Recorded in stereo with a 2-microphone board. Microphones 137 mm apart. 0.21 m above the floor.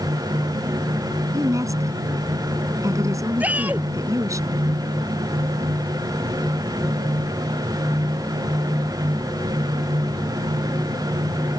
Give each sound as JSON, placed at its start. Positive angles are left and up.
{"t": 1.3, "sound": "a woman speaking", "side_deg": -25}
{"t": 3.4, "sound": "a shout", "side_deg": -10}